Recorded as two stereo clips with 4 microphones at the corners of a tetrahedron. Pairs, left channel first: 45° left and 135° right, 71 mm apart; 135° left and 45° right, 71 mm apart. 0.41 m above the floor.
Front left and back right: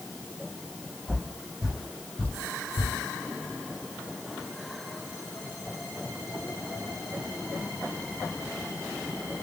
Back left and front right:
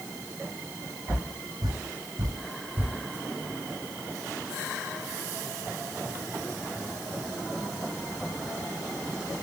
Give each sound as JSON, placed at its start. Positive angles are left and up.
{"t": 1.1, "sound": "footsteps", "azimuth_deg": -60, "distance_m": 1.0}